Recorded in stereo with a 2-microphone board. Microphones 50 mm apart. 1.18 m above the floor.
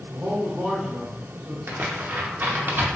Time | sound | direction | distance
0.1 | a man speaking | 45° right (ahead or behind) | 0.9 m
1.7 | tearing paper | 45° right (ahead or behind) | 0.6 m